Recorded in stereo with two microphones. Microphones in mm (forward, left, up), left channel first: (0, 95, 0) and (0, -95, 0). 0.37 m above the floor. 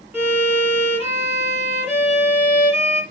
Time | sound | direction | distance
0.1 | a violin | 10° right (ahead or behind) | 3.5 m